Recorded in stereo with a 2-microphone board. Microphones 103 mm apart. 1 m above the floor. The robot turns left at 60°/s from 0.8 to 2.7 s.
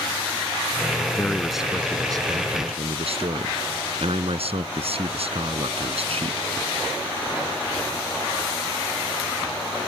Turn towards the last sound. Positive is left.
turn(degrees=-70)